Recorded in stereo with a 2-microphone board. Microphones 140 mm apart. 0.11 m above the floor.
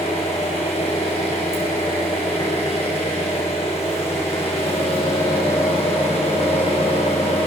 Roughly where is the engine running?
Left.